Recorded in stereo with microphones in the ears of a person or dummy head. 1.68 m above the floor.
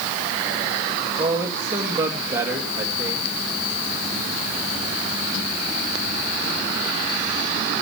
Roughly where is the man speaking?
Centre.